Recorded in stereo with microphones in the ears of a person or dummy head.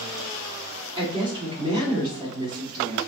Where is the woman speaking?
35° right (ahead or behind), 2 m.